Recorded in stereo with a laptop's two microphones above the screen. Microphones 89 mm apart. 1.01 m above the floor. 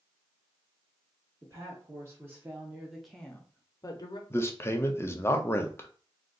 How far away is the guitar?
No guitar in this recording.